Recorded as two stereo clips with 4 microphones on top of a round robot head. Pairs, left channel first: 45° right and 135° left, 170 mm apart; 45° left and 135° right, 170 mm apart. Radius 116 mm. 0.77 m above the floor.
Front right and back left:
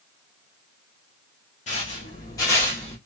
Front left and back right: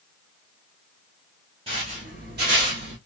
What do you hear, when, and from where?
1.7 s footsteps: 80° right, 0.9 m; by 3.0 s 130° right, 1.2 m